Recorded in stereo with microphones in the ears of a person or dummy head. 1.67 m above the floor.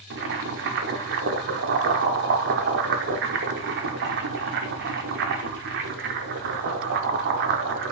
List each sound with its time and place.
0.1 s boiling: 60° right (ahead or behind), 0.8 m